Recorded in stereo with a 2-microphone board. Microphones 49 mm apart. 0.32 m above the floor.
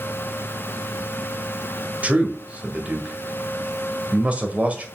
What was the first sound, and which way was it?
A man speaking, 30° right (ahead or behind).